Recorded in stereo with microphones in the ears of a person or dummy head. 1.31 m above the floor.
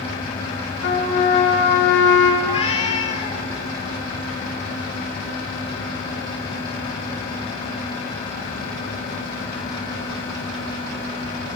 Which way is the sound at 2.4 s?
30° left (ahead or behind).